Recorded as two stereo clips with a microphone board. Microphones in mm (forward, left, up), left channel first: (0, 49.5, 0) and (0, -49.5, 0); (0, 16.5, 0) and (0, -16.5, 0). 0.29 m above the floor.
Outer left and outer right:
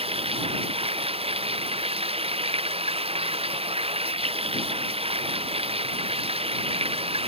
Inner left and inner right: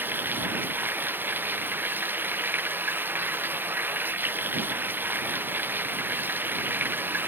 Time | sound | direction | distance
0.0 | running water | 75° right (ahead or behind) | ?